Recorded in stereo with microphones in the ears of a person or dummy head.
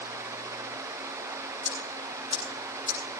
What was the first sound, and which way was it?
Ticking, 30° right (ahead or behind).